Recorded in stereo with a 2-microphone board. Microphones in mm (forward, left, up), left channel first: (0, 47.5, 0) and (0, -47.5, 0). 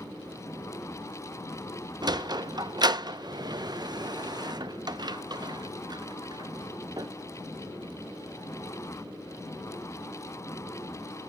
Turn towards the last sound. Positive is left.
turn(degrees=-45)  # may be behind; listen again after turning